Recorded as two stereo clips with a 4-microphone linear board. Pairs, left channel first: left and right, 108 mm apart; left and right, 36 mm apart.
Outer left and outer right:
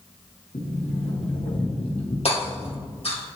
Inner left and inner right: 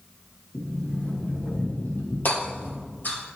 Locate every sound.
0.5 s a sliding door: 70° left (ahead or behind), 1.9 m
2.2 s hammering: 65° left (ahead or behind), 3 m